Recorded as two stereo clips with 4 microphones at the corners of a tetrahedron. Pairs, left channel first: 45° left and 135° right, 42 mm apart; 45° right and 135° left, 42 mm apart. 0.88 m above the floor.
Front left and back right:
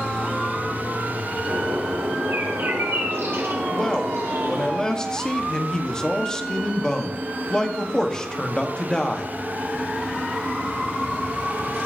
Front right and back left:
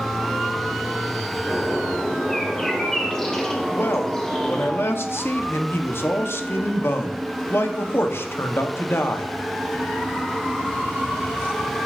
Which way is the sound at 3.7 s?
30° right.